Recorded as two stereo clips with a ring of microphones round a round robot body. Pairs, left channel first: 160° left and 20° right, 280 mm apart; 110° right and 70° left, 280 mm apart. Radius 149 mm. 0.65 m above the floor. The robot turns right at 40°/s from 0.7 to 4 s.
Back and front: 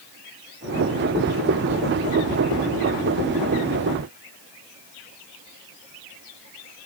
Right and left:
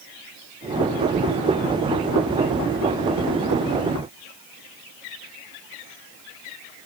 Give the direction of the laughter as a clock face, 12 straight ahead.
I don't hear laughter.